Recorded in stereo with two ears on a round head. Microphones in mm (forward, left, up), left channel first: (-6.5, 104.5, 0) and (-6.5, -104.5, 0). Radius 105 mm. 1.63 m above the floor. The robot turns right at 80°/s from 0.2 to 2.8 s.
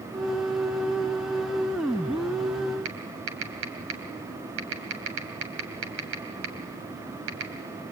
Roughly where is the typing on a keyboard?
Right.